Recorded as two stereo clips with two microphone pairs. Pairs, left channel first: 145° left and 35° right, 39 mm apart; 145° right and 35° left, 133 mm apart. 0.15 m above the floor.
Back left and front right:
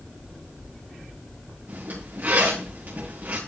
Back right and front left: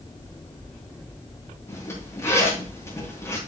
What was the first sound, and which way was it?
A zipper, 75° right.